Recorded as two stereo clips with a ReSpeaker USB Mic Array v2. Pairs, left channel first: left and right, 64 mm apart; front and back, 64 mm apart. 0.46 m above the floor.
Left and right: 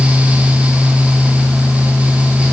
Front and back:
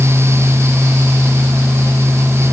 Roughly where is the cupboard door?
No cupboard door in this recording.